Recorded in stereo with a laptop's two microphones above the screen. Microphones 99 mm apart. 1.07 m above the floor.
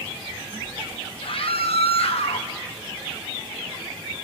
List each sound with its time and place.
1.2 s a scream: 60° left (ahead or behind), 1.0 m; by 2.5 s 70° left (ahead or behind), 1.6 m